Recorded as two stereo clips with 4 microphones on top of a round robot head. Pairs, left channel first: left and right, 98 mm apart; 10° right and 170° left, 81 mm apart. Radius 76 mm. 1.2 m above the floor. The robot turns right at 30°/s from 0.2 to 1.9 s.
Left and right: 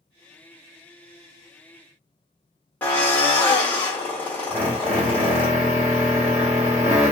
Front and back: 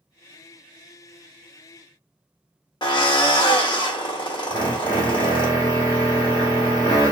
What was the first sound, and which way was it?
A drill, 15° left.